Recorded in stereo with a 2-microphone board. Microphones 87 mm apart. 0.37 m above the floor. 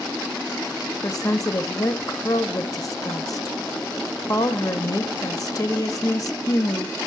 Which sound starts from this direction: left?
A woman speaking, at 1.0 s.